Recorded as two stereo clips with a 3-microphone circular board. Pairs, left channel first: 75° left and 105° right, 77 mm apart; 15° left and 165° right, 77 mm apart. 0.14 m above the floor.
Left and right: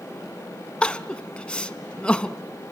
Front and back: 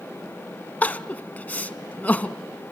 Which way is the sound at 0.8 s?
25° left.